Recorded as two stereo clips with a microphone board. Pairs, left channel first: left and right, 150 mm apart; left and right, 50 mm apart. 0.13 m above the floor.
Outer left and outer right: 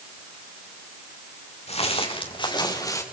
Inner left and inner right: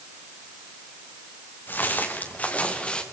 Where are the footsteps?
45° left (ahead or behind), 4.5 m; by 3.0 s 20° left (ahead or behind), 4 m.